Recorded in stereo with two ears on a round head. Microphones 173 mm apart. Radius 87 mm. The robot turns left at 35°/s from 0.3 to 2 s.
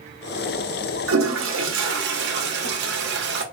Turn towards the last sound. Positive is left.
turn(degrees=-115)